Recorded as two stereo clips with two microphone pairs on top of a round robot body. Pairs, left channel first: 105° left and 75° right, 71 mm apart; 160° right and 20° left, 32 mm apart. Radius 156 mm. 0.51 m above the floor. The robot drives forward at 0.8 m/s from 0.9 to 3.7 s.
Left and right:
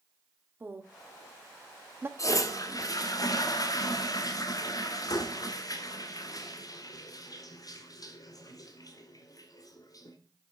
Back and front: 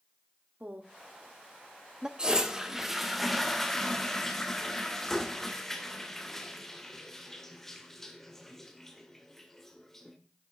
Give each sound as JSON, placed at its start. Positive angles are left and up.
{"t": 0.6, "sound": "a woman speaking", "azimuth_deg": -10, "distance_m": 1.9}
{"t": 2.2, "sound": "a toilet flushing", "azimuth_deg": 80, "distance_m": 2.0}